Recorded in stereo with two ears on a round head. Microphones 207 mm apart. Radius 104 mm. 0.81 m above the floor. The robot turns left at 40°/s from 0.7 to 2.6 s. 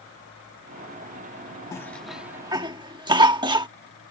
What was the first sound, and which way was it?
A cough, 15° left (ahead or behind).